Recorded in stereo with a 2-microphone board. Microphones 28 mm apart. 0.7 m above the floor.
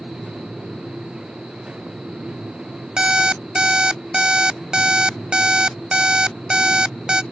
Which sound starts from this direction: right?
An alarm clock, at 3.0 s.